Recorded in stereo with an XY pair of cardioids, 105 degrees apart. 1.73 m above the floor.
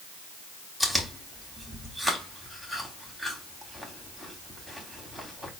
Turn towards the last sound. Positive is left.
turn(degrees=0)